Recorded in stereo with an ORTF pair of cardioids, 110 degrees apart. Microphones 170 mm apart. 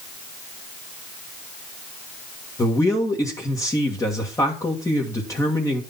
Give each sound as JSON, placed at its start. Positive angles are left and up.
{"t": 2.6, "sound": "a man speaking", "azimuth_deg": 20, "distance_m": 1.8}